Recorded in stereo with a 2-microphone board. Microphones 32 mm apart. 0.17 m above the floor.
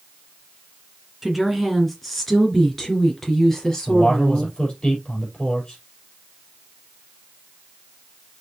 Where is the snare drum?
I don't hear a snare drum.